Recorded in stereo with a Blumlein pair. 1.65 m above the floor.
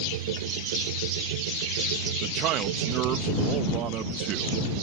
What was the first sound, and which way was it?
A machine running, 55° right.